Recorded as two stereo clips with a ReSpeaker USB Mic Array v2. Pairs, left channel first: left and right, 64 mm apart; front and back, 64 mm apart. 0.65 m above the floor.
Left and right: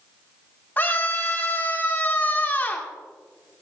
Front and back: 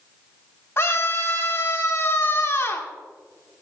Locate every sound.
0.8 s a scream: 35° left, 2 m